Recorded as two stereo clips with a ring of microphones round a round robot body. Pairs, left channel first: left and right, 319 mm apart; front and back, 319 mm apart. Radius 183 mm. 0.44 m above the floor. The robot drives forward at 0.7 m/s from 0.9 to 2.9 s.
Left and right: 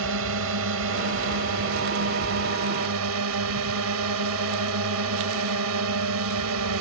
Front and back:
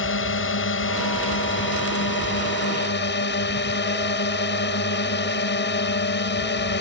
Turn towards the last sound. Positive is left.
turn(degrees=-50)